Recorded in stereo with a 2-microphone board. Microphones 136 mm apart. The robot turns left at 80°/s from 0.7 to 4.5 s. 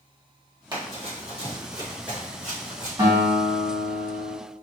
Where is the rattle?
I don't hear a rattle.